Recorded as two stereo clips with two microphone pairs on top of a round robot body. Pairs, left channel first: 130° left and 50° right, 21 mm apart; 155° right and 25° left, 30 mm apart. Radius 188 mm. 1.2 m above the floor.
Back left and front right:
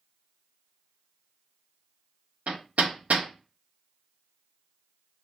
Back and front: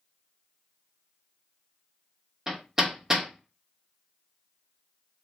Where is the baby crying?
No baby crying in this recording.